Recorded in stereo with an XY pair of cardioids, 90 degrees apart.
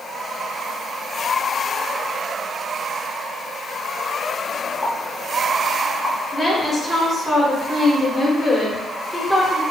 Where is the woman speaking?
20° left, 1.1 m.